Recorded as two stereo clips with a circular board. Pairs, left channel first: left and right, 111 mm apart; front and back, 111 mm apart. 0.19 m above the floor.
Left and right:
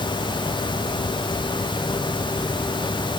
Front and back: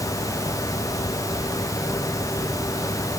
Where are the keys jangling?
No keys jangling in this recording.